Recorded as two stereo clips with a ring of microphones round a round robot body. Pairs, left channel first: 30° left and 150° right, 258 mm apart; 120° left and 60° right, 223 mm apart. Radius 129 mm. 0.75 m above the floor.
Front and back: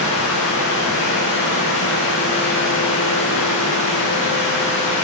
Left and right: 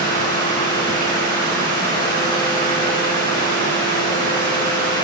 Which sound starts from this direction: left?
Running water, at 0.0 s.